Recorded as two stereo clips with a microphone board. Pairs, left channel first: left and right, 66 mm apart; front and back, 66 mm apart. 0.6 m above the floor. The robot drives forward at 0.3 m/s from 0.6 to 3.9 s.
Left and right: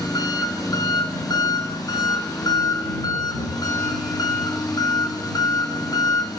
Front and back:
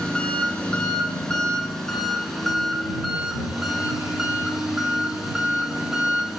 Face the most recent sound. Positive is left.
turn(degrees=95)